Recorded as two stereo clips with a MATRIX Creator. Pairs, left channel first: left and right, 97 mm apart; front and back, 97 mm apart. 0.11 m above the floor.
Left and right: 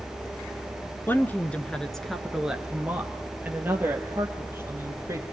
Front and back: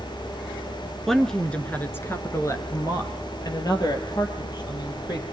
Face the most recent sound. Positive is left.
turn(degrees=-30)